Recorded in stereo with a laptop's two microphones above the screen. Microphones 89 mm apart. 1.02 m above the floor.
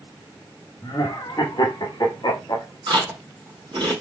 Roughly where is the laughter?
Left.